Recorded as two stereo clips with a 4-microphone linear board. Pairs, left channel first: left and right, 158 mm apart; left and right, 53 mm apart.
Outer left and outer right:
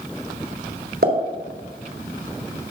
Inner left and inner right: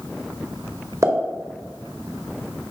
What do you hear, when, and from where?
1.0 s a pop: 85° right, 1.8 m